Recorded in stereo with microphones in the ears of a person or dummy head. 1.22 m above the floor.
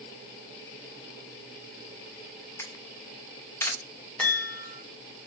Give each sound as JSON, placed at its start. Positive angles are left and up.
{"t": 2.6, "sound": "a camera shutter", "side_deg": 20, "distance_m": 0.7}
{"t": 4.2, "sound": "a chime", "side_deg": 15, "distance_m": 1.3}